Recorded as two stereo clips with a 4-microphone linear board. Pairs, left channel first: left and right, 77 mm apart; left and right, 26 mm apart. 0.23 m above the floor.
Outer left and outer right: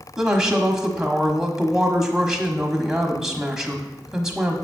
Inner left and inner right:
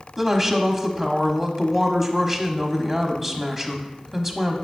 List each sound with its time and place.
0.2 s a woman speaking: 10° right (ahead or behind), 1.2 m